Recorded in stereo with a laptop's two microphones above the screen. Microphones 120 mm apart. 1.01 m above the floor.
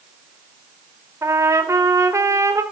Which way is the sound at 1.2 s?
25° right (ahead or behind).